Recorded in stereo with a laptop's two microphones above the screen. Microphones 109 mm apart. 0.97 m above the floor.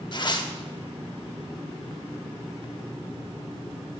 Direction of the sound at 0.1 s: 40° left (ahead or behind).